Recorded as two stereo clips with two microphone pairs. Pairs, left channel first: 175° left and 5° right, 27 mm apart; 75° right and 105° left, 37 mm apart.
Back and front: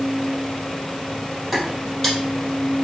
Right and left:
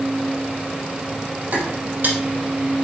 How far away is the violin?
I don't hear a violin.